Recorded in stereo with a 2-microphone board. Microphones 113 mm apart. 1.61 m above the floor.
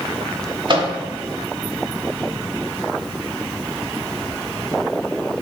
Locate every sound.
0.7 s a microwave: 45° right (ahead or behind), 0.8 m